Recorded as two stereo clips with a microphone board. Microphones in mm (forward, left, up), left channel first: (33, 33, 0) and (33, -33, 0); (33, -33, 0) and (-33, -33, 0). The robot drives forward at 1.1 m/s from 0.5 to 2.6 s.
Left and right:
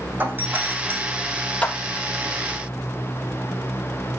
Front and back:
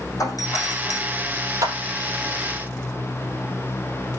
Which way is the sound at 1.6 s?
155° left.